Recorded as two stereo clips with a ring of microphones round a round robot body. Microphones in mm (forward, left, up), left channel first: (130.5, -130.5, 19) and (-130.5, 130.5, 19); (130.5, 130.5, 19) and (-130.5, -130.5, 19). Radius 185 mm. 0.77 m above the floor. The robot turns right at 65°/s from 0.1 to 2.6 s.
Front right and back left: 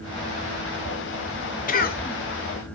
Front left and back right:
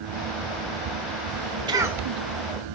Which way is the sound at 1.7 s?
75° right.